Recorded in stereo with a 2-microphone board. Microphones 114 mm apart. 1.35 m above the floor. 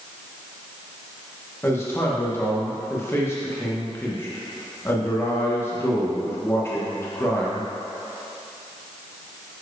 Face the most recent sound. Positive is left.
turn(degrees=25)  # may be behind; listen again after turning